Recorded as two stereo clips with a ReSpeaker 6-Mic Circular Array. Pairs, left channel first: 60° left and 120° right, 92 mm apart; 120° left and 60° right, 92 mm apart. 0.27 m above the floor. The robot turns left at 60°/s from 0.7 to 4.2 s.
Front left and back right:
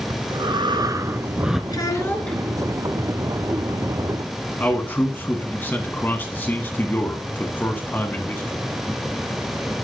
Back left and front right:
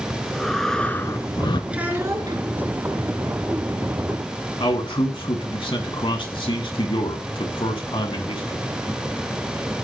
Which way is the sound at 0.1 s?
155° right.